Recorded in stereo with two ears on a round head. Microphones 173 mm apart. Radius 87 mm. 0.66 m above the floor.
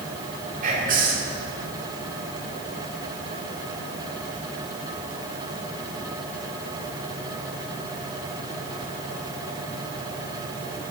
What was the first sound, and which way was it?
Whispering, 40° right (ahead or behind).